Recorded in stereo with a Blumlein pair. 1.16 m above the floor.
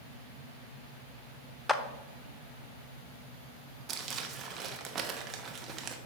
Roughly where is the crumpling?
Ahead right.